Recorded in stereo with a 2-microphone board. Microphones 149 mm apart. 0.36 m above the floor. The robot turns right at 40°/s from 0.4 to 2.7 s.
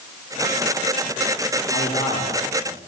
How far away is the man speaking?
About 10 m.